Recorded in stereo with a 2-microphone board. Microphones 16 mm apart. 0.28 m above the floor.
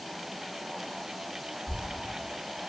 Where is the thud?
15° right (ahead or behind), 0.6 m.